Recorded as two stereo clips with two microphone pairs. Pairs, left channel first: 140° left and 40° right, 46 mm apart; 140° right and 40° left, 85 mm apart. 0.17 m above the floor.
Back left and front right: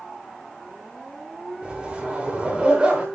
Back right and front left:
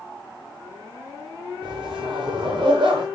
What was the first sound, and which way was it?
A zipper, 30° left.